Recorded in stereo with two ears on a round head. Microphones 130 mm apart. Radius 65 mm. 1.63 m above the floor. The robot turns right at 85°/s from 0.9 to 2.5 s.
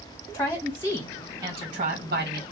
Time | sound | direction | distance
0.3 | a woman speaking | 165° left | 1.9 m